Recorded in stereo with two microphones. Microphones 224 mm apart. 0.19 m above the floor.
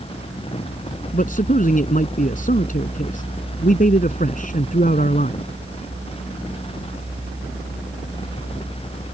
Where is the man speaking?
40° left (ahead or behind).